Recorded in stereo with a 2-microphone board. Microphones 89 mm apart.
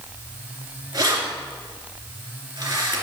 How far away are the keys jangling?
About 2.5 m.